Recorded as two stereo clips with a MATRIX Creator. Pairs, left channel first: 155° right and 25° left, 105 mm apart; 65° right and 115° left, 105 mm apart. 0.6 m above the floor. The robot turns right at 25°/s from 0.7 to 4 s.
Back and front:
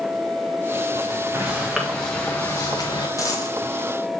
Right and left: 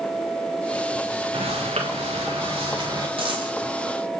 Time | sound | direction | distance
1.3 | footsteps | 90° left | 2.5 m
3.2 | a dropped coin | 145° left | 2.5 m